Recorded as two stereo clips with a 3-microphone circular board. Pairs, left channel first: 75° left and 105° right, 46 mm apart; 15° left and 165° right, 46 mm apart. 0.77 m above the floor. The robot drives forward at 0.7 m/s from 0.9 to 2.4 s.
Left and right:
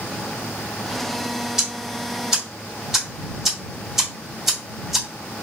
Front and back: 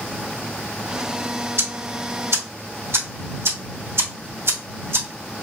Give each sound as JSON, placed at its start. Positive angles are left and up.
{"t": 1.6, "sound": "ticking", "azimuth_deg": 175, "distance_m": 1.7}